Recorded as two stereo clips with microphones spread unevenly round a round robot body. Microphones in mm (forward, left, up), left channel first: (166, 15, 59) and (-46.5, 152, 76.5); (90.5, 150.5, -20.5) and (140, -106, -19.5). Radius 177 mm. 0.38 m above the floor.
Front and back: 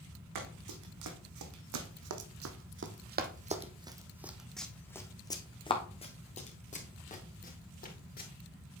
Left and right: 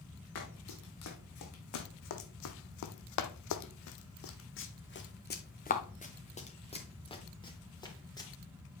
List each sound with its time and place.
0.3 s running footsteps: 150° left, 1.7 m; by 8.3 s 25° left, 3 m